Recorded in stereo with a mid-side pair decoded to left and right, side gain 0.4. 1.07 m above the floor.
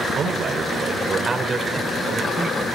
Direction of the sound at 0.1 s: 60° right.